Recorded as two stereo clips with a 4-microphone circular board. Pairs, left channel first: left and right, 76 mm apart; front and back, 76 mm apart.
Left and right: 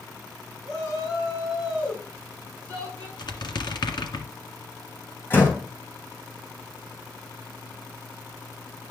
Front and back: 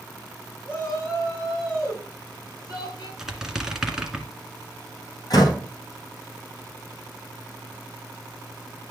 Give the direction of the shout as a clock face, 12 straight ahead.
10 o'clock.